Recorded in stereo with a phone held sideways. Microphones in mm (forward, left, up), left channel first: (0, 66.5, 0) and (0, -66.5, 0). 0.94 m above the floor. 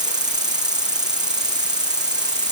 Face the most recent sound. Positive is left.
turn(degrees=-30)  # may be behind; listen again after turning